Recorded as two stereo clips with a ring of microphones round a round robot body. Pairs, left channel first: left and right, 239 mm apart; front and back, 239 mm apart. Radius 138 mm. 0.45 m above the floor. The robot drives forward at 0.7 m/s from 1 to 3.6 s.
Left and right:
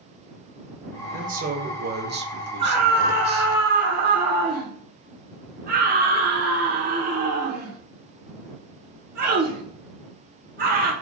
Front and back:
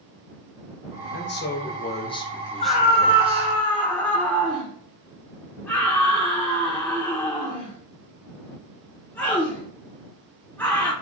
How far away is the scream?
About 1.7 m.